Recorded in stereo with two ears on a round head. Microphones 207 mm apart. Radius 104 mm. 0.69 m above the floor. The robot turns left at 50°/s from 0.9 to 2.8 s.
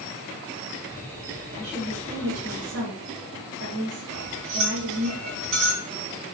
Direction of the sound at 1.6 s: 30° right.